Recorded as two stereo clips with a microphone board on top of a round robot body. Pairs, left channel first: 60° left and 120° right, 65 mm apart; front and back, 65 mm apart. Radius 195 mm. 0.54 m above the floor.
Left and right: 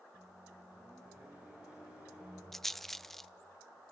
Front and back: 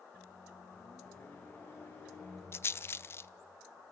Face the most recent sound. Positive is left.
turn(degrees=-25)